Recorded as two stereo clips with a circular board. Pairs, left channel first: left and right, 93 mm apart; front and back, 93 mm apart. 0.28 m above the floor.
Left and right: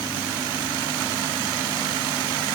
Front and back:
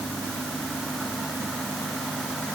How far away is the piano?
I don't hear a piano.